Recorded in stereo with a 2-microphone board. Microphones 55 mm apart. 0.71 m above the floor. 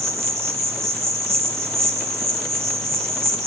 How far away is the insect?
About 1.5 m.